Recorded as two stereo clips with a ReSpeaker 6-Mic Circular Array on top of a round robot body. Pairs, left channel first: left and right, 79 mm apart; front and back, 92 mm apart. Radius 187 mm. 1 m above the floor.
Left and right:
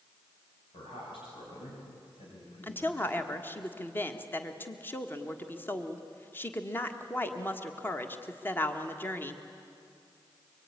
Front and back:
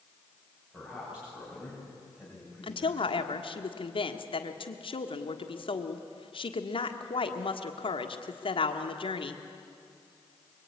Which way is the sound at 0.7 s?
105° left.